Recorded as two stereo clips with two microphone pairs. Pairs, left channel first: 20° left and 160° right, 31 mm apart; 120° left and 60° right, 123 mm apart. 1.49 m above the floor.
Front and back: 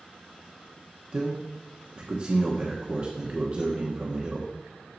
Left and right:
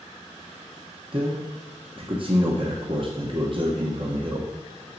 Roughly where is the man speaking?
Right.